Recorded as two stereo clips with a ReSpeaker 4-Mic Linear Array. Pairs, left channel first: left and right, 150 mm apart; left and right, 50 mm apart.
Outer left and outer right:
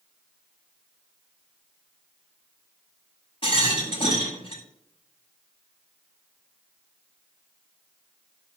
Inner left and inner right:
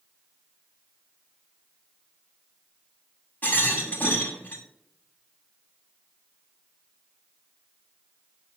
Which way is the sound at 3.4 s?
35° left (ahead or behind).